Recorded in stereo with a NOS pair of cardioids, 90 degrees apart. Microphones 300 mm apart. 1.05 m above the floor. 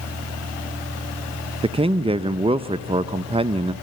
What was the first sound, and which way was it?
A man speaking, 20° right.